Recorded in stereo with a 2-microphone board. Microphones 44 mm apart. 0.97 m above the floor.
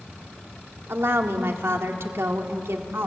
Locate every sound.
0.9 s a woman speaking: 70° right (ahead or behind), 2.0 m